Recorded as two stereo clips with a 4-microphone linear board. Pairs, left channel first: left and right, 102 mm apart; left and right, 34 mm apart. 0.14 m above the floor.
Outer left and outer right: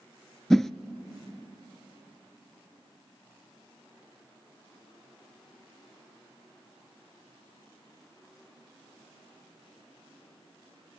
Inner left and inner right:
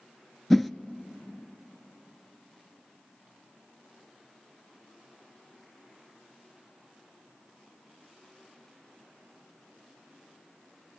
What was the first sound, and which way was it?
A whoosh, 5° left (ahead or behind).